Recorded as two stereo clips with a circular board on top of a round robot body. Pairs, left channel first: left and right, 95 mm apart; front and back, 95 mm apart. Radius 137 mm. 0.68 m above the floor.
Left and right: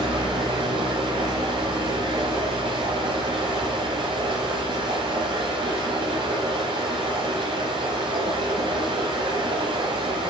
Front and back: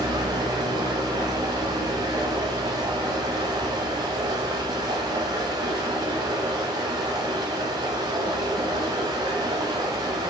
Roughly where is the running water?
Behind right.